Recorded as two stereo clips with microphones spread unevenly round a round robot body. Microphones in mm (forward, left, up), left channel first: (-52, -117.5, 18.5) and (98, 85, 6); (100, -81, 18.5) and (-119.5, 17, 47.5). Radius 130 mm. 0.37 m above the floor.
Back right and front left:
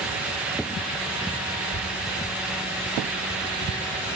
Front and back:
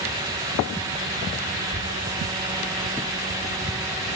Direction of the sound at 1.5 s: 90° right.